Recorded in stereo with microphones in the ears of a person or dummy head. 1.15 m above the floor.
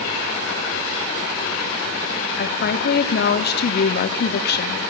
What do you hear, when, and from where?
2.4 s a woman speaking: 45° left (ahead or behind), 1.0 m